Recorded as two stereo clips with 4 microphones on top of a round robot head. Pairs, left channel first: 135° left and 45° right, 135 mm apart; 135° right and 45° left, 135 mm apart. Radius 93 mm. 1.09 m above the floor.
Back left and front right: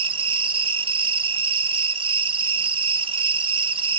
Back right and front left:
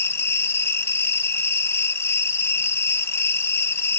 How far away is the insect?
About 1.0 m.